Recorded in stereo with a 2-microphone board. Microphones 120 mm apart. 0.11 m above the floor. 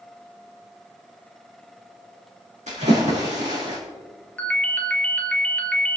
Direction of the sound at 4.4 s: 10° left (ahead or behind).